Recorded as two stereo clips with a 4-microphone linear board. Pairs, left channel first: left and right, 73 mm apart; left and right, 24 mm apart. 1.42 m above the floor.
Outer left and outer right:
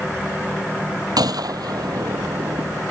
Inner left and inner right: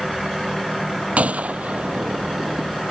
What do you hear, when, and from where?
1.2 s a gunshot: 60° right (ahead or behind)